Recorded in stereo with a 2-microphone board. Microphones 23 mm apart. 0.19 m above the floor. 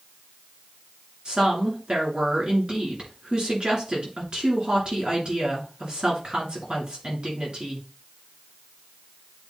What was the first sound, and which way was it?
A woman speaking, 45° right (ahead or behind).